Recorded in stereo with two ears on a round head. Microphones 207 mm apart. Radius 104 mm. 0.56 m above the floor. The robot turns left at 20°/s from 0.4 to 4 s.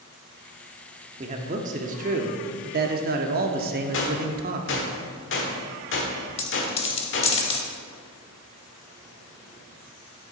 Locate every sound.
1.2 s a man speaking: 45° right, 0.8 m; by 4.9 s 105° right, 0.8 m
3.9 s a gunshot: 55° left (ahead or behind), 1.4 m
6.4 s a dropped coin: 25° left (ahead or behind), 0.8 m